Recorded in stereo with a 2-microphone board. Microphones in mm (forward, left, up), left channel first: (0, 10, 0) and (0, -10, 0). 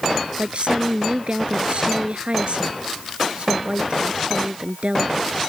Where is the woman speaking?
60° right (ahead or behind).